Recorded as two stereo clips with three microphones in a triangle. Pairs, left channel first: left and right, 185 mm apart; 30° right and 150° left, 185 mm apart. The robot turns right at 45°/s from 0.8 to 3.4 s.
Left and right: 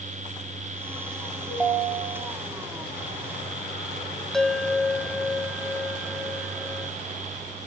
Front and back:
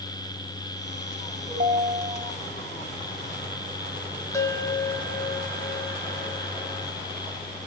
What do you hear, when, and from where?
1.5 s a ringtone: 175° right, 2.5 m; by 2.3 s 135° right, 2.5 m
4.3 s a bell: 5° left, 0.6 m